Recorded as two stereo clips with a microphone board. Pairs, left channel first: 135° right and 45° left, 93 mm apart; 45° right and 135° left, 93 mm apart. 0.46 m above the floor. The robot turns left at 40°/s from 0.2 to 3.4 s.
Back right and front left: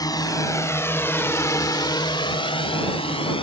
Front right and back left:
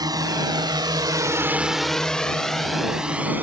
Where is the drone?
Straight behind; by 3.4 s 155° right.